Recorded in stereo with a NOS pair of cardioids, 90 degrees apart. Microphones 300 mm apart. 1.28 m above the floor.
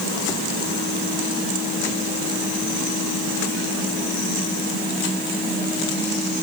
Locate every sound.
Only background noise.